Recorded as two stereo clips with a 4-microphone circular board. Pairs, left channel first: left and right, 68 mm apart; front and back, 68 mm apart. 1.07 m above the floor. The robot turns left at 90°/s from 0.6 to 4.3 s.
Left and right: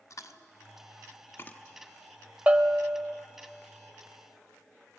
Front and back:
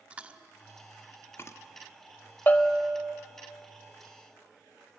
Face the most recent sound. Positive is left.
turn(degrees=160)